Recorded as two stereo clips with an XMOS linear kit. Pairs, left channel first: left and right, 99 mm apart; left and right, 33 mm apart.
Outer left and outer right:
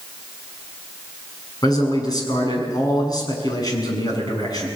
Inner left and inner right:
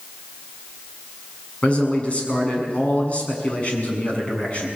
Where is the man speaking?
40° left (ahead or behind), 7 m.